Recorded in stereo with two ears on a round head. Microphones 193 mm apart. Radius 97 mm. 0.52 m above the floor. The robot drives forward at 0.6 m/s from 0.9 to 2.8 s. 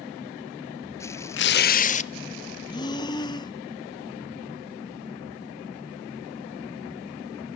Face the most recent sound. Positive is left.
turn(degrees=20)  # may be behind; listen again after turning